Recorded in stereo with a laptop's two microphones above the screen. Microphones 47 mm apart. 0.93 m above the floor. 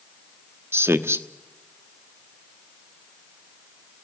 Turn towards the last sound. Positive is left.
turn(degrees=-65)  # may be behind; listen again after turning